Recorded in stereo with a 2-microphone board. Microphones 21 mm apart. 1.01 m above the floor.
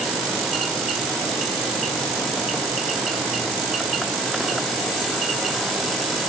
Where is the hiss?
No hiss in this recording.